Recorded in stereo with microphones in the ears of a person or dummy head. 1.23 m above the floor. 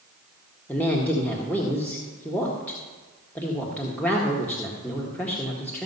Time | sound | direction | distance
0.7 | a woman speaking | 10° left (ahead or behind) | 1.5 m